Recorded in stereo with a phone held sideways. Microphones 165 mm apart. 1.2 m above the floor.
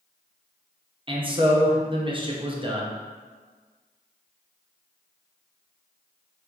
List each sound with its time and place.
1.1 s a man speaking: 30° right (ahead or behind), 0.7 m